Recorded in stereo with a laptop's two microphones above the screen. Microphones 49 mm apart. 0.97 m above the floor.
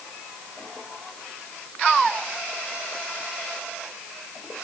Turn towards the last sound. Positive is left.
No sound to turn to.